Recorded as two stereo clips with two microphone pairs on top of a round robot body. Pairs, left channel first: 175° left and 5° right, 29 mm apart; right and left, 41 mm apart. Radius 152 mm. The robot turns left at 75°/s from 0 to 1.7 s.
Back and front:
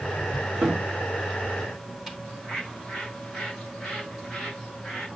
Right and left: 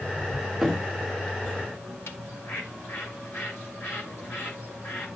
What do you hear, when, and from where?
0.6 s a cupboard door: 5° left, 0.9 m; by 2.1 s 75° right, 0.9 m
2.2 s a bird: 85° right, 7.5 m